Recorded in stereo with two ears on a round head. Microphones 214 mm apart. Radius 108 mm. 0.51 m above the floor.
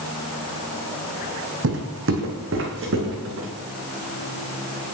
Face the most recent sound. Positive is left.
turn(degrees=-60)  # may be behind; listen again after turning